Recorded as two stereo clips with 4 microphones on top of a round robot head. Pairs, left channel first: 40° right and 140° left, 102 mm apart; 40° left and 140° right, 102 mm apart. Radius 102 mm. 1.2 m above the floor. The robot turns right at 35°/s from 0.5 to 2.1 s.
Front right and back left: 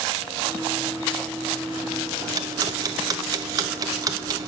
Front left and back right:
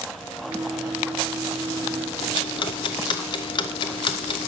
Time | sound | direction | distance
2.2 | ticking | 85° left | 0.6 m